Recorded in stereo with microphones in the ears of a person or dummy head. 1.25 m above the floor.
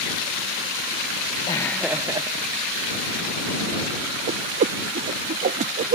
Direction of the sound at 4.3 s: 45° right (ahead or behind).